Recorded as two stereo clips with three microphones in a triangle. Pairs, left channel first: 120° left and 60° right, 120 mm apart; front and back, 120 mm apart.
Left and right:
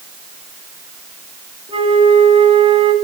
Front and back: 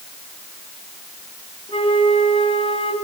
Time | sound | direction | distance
1.7 | a flute | 30° right | 1.9 m